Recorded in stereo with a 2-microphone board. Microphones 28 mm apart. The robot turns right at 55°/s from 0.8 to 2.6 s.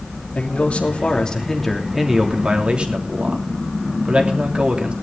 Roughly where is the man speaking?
Behind left.